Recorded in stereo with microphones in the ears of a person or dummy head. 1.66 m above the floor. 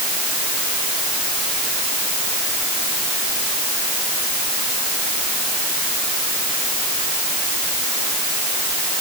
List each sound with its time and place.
Only background noise.